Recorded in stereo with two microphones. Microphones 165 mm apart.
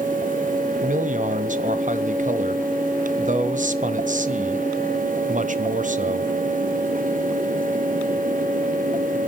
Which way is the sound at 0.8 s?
50° right (ahead or behind).